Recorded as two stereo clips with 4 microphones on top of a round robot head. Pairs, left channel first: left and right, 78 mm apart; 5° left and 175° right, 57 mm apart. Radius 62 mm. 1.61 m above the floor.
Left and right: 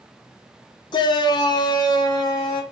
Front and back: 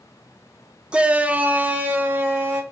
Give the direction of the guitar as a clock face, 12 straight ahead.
I don't hear a guitar.